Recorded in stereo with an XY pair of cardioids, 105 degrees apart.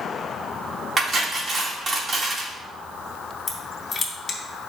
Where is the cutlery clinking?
35° right, 2.5 m.